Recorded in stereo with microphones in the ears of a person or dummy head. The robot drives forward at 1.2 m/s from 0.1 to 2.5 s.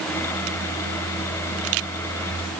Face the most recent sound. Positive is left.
No sound to turn to.